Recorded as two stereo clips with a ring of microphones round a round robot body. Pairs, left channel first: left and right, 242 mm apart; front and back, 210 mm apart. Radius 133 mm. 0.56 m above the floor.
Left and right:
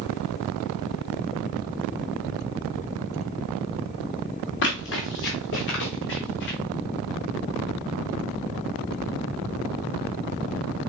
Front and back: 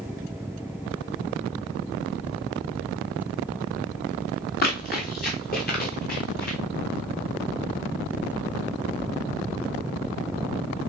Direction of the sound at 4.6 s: 45° left.